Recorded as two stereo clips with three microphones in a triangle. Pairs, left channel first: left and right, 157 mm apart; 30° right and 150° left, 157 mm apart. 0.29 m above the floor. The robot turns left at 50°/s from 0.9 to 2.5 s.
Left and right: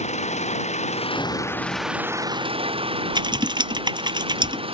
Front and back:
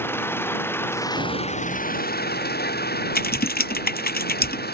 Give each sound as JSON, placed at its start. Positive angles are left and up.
{"t": 0.0, "sound": "an engine running", "azimuth_deg": 45}
{"t": 1.2, "sound": "an explosion", "azimuth_deg": 160}
{"t": 3.1, "sound": "typing on a keyboard", "azimuth_deg": -30}